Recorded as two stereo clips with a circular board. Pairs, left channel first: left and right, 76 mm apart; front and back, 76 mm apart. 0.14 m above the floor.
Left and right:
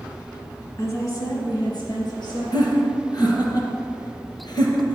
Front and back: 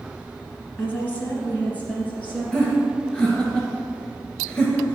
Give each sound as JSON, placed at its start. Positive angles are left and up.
{"t": 0.8, "sound": "a woman speaking", "azimuth_deg": 55, "distance_m": 1.8}
{"t": 2.5, "sound": "laughter", "azimuth_deg": 70, "distance_m": 2.5}